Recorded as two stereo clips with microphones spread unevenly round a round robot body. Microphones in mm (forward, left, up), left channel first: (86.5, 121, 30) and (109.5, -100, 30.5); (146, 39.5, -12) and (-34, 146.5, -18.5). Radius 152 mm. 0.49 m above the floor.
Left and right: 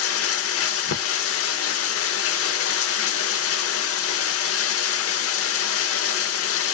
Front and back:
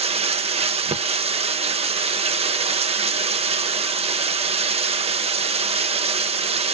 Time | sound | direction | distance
0.0 | running water | 90° left | 0.8 m